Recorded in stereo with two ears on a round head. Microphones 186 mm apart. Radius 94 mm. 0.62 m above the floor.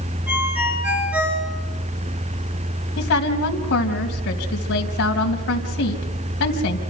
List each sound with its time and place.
0.3 s a ringtone: 10° right (ahead or behind), 6.5 m
3.0 s a woman speaking: 60° left (ahead or behind), 3 m